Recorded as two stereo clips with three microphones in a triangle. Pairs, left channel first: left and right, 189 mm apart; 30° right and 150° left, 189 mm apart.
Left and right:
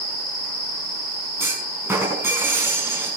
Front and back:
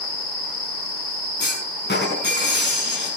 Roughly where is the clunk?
Ahead.